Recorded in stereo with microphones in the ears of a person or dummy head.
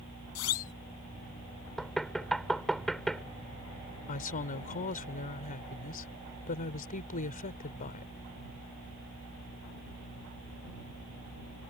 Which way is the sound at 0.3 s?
80° left.